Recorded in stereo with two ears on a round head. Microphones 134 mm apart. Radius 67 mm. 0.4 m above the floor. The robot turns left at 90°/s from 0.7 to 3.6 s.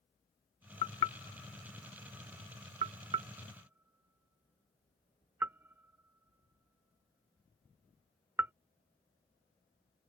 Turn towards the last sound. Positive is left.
turn(degrees=-15)  # may be behind; listen again after turning